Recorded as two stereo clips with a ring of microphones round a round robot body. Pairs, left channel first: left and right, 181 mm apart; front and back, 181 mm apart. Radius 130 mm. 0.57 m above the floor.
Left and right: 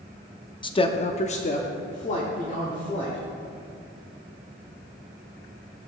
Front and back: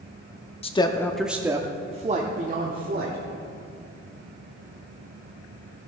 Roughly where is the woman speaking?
Ahead left.